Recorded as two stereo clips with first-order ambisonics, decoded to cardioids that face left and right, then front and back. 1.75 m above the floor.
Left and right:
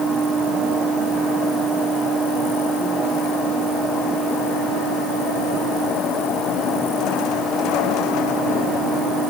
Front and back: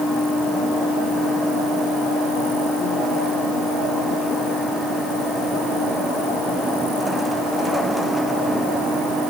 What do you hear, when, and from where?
Only background noise.